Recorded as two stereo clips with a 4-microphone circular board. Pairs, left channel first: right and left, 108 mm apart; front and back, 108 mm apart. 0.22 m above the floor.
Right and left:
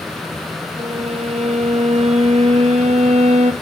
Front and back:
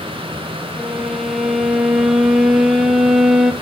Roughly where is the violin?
Left.